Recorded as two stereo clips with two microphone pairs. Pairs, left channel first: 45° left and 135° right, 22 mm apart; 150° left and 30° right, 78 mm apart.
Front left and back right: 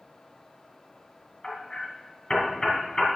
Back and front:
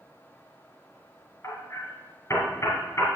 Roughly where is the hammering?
Left.